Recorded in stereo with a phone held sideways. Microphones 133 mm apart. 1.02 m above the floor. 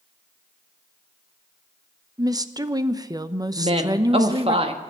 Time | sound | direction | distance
2.2 | a woman speaking | 30° right (ahead or behind) | 0.7 m
3.6 | a woman speaking | 45° right (ahead or behind) | 1.5 m